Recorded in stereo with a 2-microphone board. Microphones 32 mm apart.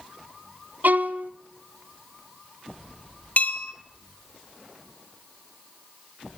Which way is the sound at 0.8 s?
65° right (ahead or behind).